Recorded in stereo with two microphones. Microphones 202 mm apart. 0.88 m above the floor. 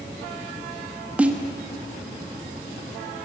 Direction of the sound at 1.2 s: 5° right (ahead or behind).